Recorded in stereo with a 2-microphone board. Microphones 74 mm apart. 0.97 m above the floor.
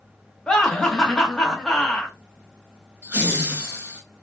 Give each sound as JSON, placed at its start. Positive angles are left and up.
{"t": 0.5, "sound": "laughter", "side_deg": 10, "distance_m": 0.9}
{"t": 3.0, "sound": "laughter", "side_deg": -30, "distance_m": 1.4}